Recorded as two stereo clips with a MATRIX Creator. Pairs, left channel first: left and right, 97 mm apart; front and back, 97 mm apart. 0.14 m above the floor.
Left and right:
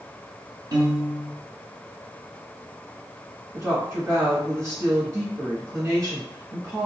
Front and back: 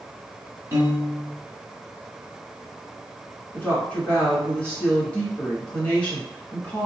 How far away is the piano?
About 1.6 m.